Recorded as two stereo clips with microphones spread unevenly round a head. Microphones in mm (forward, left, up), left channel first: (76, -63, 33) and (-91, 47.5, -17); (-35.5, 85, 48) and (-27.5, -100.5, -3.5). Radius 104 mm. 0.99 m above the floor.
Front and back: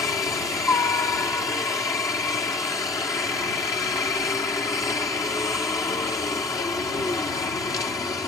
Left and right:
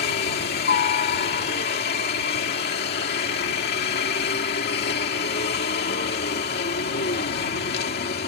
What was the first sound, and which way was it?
A helicopter, 50° left.